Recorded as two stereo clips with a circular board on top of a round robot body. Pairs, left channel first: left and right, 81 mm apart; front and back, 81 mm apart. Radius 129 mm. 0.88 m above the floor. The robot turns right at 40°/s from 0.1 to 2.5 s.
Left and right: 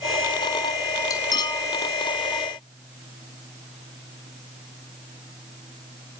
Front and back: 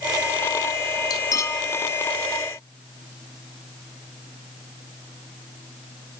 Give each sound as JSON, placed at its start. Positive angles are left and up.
{"t": 1.1, "sound": "cutlery clinking", "azimuth_deg": 45, "distance_m": 0.9}